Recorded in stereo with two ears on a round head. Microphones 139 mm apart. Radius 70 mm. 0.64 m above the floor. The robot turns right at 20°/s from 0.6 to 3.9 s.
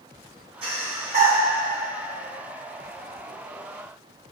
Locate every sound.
0.6 s breathing: 40° right (ahead or behind), 2.5 m; by 1.4 s 55° right (ahead or behind), 2.5 m